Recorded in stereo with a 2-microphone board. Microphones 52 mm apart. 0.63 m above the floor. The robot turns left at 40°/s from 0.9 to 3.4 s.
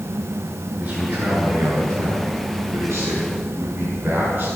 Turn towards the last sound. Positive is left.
turn(degrees=-150)